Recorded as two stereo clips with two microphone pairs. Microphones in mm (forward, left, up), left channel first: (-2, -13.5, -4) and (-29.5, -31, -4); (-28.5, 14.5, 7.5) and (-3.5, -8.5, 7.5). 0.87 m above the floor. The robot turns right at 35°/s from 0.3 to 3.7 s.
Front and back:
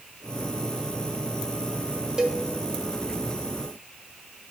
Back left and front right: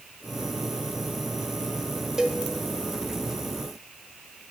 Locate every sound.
2.2 s a cowbell: 100° right, 0.7 m; by 2.4 s 90° right, 0.7 m